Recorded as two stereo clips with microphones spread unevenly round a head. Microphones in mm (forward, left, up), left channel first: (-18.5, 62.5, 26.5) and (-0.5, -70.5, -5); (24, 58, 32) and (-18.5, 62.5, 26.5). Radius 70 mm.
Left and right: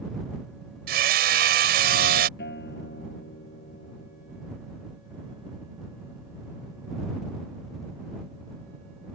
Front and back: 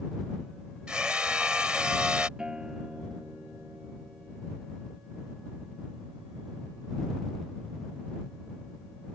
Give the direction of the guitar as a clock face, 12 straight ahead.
9 o'clock.